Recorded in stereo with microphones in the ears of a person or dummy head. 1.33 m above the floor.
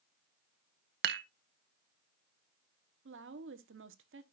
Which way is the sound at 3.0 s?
60° right (ahead or behind).